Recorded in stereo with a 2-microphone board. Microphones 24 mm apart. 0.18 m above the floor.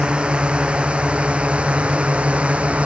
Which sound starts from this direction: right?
A drone, at 0.0 s.